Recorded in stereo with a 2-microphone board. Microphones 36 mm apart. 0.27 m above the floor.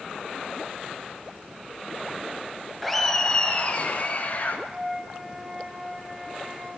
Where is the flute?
20° right (ahead or behind), 2 m.